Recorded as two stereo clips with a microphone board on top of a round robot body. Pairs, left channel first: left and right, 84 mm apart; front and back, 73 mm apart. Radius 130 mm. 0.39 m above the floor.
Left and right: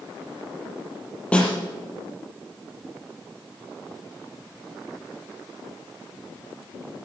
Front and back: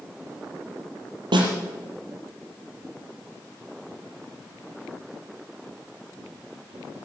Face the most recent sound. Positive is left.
turn(degrees=170)